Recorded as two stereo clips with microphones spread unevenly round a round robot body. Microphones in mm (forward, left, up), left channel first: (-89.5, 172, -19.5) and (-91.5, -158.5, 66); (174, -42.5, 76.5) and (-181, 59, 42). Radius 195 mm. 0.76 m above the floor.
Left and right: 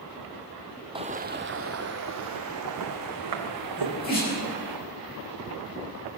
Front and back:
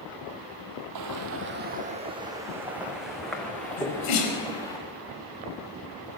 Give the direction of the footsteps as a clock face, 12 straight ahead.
5 o'clock.